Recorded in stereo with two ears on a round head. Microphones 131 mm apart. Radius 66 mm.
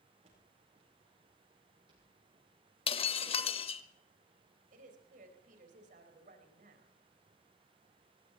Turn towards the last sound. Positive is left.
turn(degrees=-60)  # may be behind; listen again after turning